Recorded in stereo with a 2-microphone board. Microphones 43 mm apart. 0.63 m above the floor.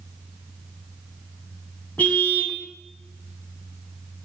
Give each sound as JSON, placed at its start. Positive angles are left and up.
{"t": 2.0, "sound": "a car horn", "side_deg": 35, "distance_m": 3.0}